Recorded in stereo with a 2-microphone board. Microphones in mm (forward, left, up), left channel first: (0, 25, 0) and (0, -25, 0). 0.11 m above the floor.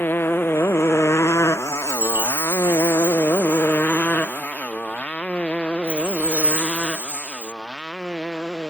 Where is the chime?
45° right (ahead or behind).